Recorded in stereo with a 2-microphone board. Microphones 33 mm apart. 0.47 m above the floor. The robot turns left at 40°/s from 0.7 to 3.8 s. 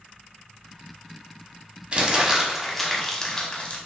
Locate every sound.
1.9 s crumpling: 30° right (ahead or behind), 1.0 m; by 3.8 s 45° left (ahead or behind), 1.0 m